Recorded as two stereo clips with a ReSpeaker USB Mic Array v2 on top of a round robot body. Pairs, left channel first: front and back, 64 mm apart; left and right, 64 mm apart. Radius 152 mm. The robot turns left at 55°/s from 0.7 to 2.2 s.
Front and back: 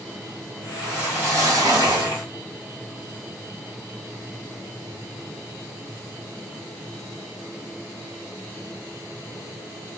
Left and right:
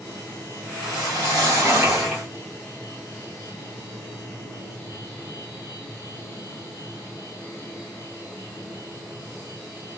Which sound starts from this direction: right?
A whoosh, at 0.8 s.